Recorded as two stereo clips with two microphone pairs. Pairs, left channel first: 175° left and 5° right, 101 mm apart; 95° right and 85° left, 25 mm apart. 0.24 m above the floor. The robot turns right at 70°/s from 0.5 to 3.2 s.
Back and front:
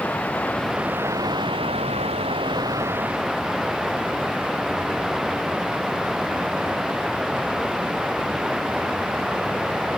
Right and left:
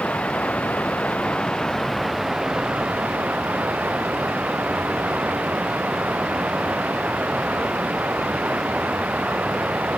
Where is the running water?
110° right; by 10.0 s 80° left.